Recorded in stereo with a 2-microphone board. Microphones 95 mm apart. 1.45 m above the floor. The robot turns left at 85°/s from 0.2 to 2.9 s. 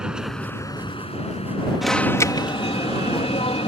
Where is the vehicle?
10° right (ahead or behind); by 3.7 s 50° right (ahead or behind).